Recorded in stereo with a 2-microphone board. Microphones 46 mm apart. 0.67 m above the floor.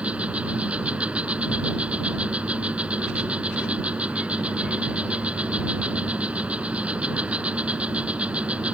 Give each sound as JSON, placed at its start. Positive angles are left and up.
{"t": 0.0, "sound": "an insect", "side_deg": -30}